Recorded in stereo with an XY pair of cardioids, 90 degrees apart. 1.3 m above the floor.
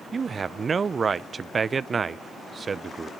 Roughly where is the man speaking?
Ahead right.